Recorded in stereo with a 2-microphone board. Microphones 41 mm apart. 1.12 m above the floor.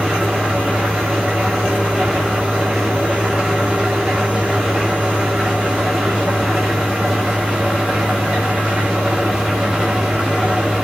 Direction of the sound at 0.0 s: 20° right (ahead or behind).